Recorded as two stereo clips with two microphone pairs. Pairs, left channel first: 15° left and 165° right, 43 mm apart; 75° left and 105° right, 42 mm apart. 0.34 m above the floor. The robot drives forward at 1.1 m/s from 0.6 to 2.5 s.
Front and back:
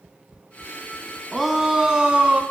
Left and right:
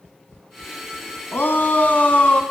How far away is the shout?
About 2.5 m.